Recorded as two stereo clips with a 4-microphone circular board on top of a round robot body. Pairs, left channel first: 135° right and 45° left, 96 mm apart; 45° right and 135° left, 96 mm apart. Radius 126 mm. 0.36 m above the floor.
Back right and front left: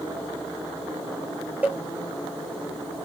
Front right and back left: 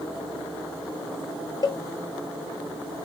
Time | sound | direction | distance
1.6 | a cowbell | 25° right | 0.5 m